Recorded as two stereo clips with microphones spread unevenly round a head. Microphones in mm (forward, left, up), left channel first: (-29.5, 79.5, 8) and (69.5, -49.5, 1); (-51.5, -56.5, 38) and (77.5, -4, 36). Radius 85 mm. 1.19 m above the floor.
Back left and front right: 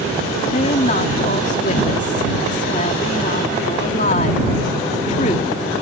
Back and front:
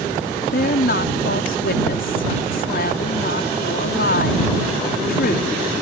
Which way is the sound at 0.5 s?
Straight behind.